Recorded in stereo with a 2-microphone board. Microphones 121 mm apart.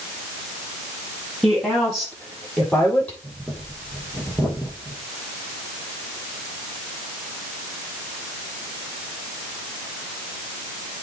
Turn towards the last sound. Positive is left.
turn(degrees=0)  # may be behind; listen again after turning